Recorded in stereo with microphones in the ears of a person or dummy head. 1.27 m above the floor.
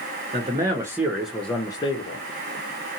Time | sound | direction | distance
0.3 | a man speaking | 30° right (ahead or behind) | 0.9 m